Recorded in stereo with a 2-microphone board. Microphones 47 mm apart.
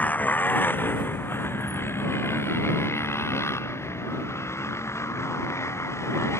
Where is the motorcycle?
35° left (ahead or behind); by 6.4 s 80° left.